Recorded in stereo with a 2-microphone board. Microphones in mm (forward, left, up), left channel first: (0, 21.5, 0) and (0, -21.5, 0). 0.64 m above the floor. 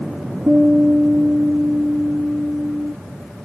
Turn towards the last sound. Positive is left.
turn(degrees=-40)  # may be behind; listen again after turning